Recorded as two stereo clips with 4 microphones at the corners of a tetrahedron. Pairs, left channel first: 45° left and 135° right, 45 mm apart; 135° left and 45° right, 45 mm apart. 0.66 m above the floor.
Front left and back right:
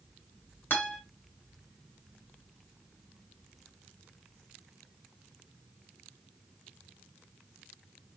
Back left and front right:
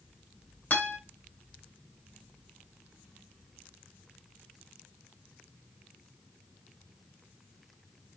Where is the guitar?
85° left, 2.5 m.